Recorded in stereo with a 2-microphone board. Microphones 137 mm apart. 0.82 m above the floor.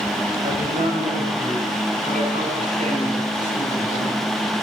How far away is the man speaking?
About 5 m.